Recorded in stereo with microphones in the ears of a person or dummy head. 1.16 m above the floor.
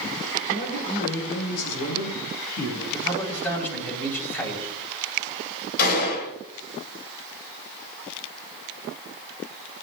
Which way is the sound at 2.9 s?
15° left (ahead or behind).